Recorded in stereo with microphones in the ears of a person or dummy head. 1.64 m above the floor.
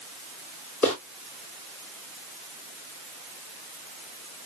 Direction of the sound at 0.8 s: 15° left (ahead or behind).